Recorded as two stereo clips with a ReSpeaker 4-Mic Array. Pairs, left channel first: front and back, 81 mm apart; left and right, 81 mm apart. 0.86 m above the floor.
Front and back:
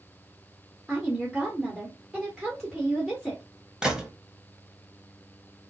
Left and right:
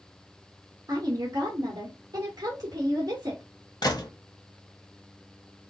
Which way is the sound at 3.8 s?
100° left.